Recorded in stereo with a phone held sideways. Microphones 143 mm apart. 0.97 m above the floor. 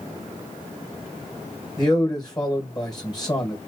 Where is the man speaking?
30° left (ahead or behind), 1.2 m.